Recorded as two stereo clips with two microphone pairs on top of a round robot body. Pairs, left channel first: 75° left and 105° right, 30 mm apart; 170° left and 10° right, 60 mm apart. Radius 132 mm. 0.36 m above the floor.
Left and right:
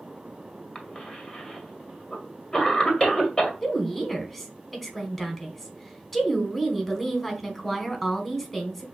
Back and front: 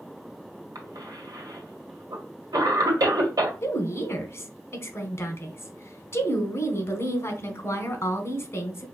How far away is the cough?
About 1.7 m.